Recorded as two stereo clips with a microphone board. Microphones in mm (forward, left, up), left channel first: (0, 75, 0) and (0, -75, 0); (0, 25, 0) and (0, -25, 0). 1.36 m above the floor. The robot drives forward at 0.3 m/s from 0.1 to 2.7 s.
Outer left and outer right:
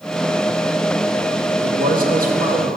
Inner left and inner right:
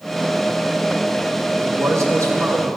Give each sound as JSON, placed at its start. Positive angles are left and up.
{"t": 1.6, "sound": "a man speaking", "side_deg": -65, "distance_m": 1.3}